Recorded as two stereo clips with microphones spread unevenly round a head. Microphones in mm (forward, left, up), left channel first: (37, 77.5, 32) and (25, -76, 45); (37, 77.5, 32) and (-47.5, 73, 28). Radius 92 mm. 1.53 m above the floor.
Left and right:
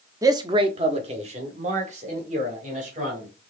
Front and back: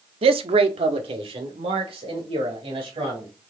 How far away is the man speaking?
About 0.6 m.